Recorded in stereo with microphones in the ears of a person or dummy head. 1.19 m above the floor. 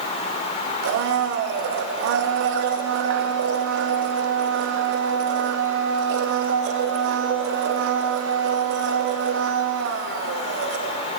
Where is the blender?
65° right (ahead or behind), 0.8 m.